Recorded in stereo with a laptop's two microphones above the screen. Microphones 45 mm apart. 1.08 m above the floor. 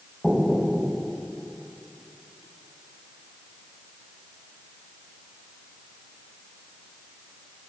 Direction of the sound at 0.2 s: Centre (ahead or behind).